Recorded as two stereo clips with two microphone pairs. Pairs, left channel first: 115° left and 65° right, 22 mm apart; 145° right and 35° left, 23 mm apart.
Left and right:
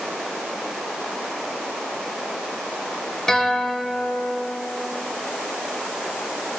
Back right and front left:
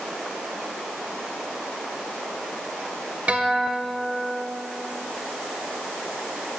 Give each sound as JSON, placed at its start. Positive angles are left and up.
{"t": 3.3, "sound": "a guitar", "azimuth_deg": 50, "distance_m": 2.0}